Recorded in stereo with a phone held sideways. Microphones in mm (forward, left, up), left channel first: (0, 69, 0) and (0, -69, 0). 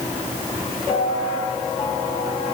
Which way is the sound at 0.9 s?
35° left (ahead or behind).